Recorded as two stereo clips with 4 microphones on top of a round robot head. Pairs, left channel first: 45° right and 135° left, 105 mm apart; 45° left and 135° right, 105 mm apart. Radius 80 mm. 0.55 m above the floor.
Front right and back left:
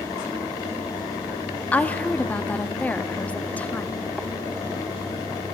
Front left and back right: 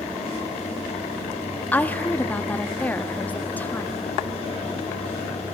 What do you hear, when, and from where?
1.7 s a woman speaking: 5° left, 0.8 m